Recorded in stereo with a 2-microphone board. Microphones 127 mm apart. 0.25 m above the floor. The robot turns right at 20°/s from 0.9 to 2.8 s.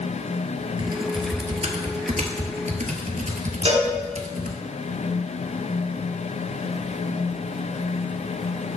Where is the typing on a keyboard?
40° right (ahead or behind), 0.8 m; by 4.6 s 75° right (ahead or behind), 0.8 m.